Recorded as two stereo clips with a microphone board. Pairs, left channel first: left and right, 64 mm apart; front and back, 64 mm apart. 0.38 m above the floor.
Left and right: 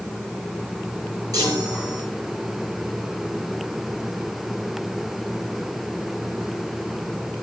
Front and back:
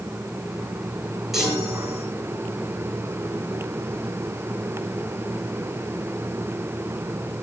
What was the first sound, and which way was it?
A chime, 95° right.